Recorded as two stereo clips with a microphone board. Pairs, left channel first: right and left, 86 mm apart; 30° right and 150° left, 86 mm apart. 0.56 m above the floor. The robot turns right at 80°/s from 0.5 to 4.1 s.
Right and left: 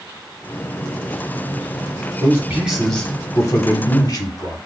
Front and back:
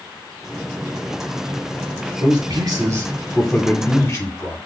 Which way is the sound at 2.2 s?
130° left.